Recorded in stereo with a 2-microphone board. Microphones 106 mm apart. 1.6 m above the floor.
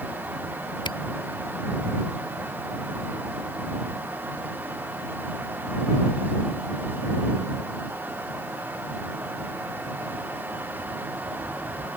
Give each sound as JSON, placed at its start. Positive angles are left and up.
{"t": 0.8, "sound": "a camera shutter", "side_deg": 50}